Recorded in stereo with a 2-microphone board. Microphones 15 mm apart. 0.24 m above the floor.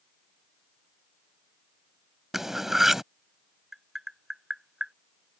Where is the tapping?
45° right (ahead or behind).